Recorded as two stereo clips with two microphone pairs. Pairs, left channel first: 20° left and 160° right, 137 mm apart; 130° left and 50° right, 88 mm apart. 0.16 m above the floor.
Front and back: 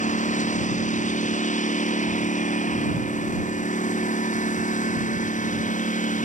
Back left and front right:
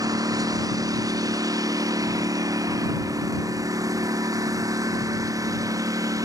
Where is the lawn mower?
5° right; by 6.2 s straight ahead.